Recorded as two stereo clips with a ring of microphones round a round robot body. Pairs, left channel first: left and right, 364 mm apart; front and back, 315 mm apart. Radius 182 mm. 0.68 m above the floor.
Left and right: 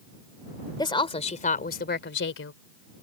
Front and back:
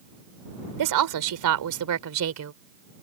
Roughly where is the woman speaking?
Behind.